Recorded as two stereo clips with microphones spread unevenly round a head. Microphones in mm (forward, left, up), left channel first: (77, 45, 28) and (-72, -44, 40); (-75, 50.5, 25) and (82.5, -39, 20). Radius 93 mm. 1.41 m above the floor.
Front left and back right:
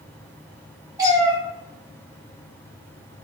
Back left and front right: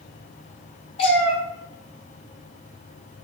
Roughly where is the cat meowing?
Behind.